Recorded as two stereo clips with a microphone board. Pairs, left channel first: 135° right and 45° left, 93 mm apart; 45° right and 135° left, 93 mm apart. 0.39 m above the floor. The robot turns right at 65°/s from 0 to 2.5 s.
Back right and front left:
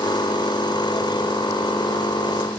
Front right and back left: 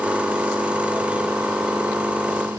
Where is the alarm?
No alarm in this recording.